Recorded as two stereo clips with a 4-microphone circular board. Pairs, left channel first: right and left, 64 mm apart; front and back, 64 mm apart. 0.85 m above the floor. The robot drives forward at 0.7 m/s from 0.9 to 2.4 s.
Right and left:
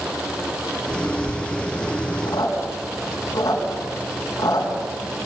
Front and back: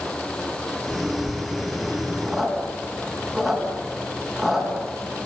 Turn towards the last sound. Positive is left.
turn(degrees=-90)